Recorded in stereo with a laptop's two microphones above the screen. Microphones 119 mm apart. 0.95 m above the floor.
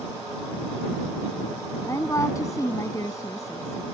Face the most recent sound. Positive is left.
turn(degrees=25)  # may be behind; listen again after turning